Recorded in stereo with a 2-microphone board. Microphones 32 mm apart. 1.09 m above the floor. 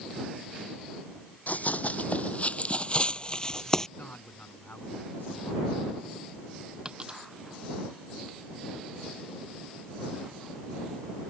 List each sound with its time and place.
1.5 s running footsteps: 55° left (ahead or behind); by 3.9 s 15° left (ahead or behind)
4.0 s a man speaking: 65° left (ahead or behind)
6.8 s a dropped coin: 30° right (ahead or behind)